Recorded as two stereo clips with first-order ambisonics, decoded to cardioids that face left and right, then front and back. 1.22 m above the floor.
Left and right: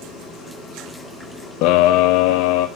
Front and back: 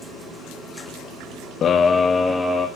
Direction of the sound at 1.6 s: 60° left.